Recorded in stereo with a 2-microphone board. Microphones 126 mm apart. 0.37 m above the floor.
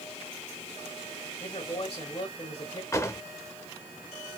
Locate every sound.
1.4 s a man speaking: 45° left (ahead or behind), 1.6 m
2.9 s a drawer: 25° left (ahead or behind), 0.6 m